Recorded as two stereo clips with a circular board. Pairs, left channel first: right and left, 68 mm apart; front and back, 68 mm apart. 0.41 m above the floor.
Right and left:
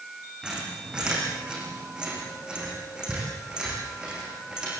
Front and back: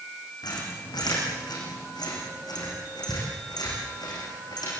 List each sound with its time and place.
0.4 s a squeak: 15° left, 7 m